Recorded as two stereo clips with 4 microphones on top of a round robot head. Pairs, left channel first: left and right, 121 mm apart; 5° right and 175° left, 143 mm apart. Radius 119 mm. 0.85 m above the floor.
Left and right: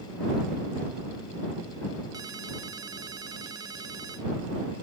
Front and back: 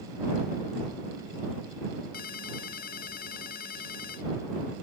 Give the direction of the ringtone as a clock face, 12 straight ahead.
1 o'clock.